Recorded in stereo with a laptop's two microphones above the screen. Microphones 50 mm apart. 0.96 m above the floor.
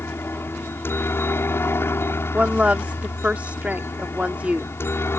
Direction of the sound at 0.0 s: 55° left (ahead or behind).